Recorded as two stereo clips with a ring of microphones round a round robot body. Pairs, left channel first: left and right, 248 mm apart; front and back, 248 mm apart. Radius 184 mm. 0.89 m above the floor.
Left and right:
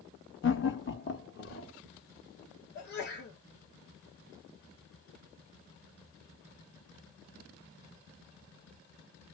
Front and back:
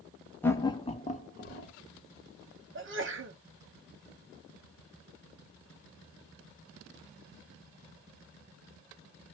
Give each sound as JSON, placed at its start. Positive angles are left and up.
{"t": 0.4, "sound": "laughter", "azimuth_deg": 80, "distance_m": 1.2}
{"t": 2.8, "sound": "a sneeze", "azimuth_deg": 140, "distance_m": 1.0}